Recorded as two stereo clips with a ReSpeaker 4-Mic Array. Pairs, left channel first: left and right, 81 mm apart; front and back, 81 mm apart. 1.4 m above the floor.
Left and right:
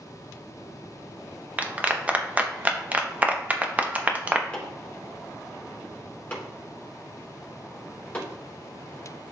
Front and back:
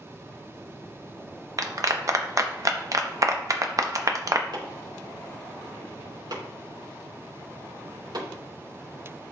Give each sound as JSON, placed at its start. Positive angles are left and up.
{"t": 1.6, "sound": "a clap", "azimuth_deg": -155, "distance_m": 0.8}
{"t": 4.5, "sound": "chopping", "azimuth_deg": 160, "distance_m": 3.5}